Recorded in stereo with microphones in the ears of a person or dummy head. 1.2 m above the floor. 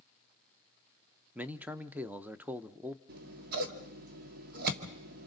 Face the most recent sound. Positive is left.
turn(degrees=-50)  # may be behind; listen again after turning